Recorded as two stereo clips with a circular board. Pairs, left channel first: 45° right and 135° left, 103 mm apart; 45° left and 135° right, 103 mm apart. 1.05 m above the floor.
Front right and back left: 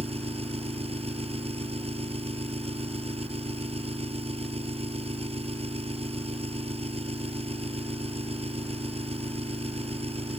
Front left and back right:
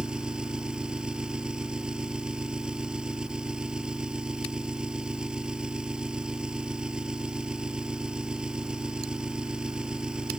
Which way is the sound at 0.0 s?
145° left.